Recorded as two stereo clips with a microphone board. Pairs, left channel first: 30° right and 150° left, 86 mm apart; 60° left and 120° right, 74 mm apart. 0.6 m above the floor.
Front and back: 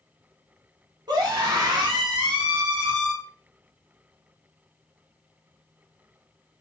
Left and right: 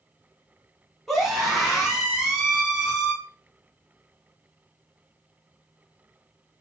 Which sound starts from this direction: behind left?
A scream, at 1.1 s.